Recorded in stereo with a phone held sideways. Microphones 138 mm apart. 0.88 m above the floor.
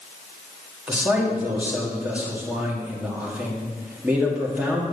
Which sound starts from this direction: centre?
A man speaking, at 0.9 s.